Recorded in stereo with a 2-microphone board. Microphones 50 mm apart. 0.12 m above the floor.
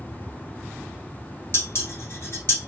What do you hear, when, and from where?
1.5 s dishes clattering: 50° left (ahead or behind), 1.2 m